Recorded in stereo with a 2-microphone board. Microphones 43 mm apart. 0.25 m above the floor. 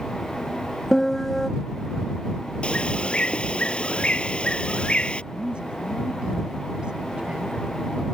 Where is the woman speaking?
20° right (ahead or behind).